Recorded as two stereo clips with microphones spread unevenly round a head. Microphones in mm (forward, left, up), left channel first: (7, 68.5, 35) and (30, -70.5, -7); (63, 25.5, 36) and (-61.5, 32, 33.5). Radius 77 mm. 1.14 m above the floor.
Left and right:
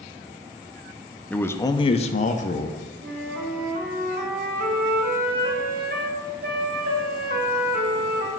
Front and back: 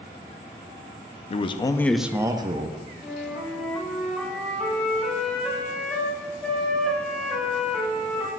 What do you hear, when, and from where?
1.3 s a man speaking: 5° left, 0.6 m; by 2.9 s 150° left, 0.9 m
3.0 s a flute: 90° right, 1.2 m